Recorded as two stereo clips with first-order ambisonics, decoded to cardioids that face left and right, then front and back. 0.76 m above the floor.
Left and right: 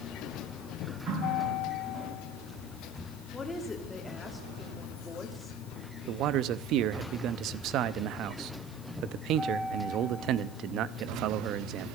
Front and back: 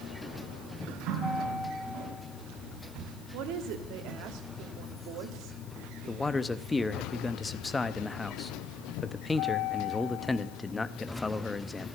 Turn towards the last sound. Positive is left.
turn(degrees=-80)